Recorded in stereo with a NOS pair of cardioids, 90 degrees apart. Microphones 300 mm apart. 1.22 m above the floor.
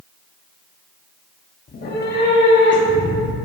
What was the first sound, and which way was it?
A cat meowing, 30° left.